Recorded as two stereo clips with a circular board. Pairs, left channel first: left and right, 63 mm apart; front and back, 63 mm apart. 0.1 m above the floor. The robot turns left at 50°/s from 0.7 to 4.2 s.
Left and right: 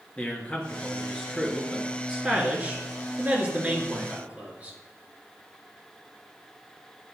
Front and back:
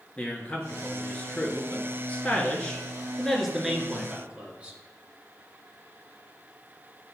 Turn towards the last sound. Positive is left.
turn(degrees=-130)